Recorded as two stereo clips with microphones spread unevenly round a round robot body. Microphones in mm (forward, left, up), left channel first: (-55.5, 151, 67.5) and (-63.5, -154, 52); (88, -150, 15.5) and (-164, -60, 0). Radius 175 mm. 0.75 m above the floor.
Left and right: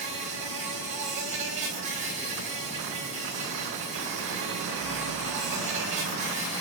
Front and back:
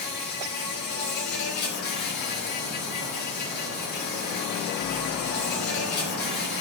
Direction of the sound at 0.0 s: 20° right.